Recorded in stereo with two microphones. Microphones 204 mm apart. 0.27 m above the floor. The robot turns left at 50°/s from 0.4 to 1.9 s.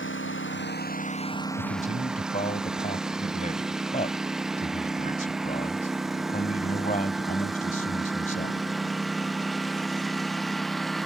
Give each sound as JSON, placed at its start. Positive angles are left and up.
{"t": 0.0, "sound": "a lawn mower", "side_deg": 70}
{"t": 1.6, "sound": "a man speaking", "side_deg": 45}